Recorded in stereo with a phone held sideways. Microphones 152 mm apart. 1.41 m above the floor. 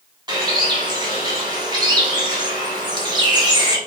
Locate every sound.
0.3 s a bird: 30° right (ahead or behind), 1.2 m